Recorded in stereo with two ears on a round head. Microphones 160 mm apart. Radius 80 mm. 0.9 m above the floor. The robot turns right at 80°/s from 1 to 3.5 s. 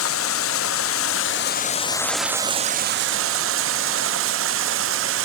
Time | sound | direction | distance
0.0 | running water | 85° left | 0.7 m